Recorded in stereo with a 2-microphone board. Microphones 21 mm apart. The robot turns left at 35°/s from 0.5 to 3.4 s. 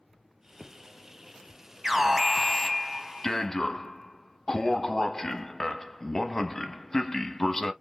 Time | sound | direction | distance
1.8 | an alarm | 165° right | 0.8 m